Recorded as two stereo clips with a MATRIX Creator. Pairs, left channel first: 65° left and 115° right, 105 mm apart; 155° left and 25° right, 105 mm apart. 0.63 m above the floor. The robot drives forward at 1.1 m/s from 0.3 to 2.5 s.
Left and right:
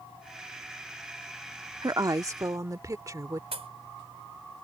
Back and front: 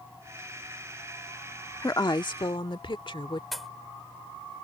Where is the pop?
115° right.